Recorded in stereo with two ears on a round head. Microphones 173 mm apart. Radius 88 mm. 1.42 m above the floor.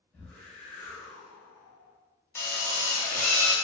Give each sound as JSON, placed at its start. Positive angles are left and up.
{"t": 0.1, "sound": "a whoosh", "side_deg": 10, "distance_m": 1.0}
{"t": 2.4, "sound": "a drill", "side_deg": 15, "distance_m": 0.6}